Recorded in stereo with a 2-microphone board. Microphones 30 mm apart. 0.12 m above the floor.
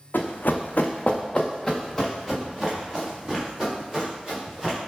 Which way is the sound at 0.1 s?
85° left.